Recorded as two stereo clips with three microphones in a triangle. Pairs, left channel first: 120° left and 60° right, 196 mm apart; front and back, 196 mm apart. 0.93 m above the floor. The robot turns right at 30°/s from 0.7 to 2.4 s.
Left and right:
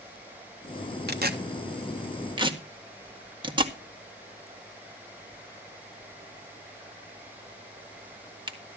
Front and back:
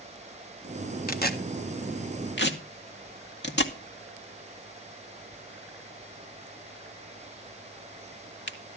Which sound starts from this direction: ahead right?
Tearing paper, at 1.1 s.